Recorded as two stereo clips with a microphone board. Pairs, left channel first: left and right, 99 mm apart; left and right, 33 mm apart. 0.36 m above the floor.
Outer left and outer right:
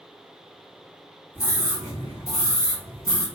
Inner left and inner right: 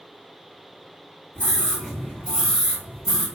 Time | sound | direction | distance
1.4 | a scream | 20° left (ahead or behind) | 1.9 m